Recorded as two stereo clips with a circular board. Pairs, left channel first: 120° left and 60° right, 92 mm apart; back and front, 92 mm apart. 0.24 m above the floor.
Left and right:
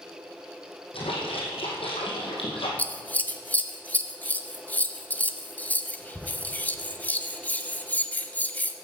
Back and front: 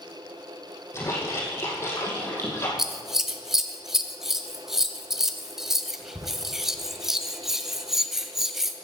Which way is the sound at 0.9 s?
120° left.